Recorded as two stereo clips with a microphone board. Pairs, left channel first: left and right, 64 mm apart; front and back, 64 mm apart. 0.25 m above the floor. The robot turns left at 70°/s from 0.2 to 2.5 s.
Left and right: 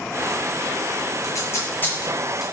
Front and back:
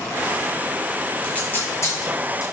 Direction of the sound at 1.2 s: 75° left.